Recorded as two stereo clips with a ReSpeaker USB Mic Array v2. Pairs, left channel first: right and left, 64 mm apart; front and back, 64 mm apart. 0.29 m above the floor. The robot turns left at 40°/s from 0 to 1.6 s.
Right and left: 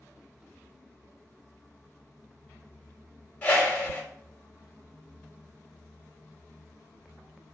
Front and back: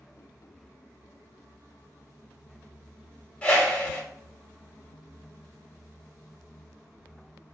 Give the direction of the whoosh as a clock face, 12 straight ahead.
2 o'clock.